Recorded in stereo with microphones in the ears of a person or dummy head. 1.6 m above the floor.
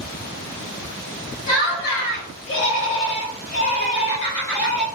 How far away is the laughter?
About 1.5 m.